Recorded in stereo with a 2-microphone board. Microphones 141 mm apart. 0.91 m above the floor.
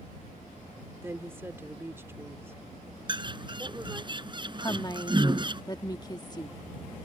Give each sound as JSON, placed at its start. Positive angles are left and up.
{"t": 1.0, "sound": "a woman speaking", "side_deg": -15}
{"t": 3.1, "sound": "a bird", "side_deg": -35}
{"t": 4.6, "sound": "a woman speaking", "side_deg": 30}